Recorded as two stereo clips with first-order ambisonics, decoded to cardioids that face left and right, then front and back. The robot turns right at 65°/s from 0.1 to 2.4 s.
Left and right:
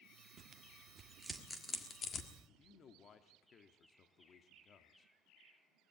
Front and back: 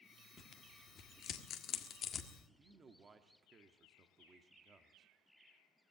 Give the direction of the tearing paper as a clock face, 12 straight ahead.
2 o'clock.